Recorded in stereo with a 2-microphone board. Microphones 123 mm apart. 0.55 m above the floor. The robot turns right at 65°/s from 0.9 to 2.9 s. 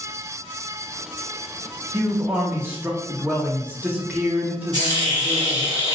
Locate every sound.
1.9 s a man speaking: 20° right (ahead or behind), 0.6 m; by 5.7 s 15° right (ahead or behind), 0.6 m
4.7 s a hiss: 35° right (ahead or behind), 1.2 m